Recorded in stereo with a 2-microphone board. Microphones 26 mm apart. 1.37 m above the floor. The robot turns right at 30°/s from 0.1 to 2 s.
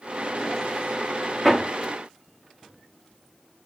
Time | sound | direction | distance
1.4 | hammering | 5° left (ahead or behind) | 1.5 m